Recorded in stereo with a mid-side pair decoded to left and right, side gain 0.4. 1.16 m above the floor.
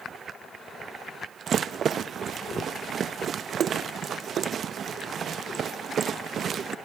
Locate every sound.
1.5 s a rattle: 60° right, 0.7 m